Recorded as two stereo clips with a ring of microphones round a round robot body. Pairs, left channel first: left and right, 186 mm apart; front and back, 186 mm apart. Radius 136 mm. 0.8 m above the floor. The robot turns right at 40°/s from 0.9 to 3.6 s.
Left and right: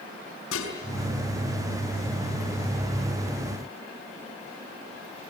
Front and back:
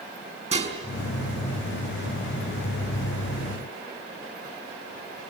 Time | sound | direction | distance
0.5 | dishes clattering | 125° left | 5 m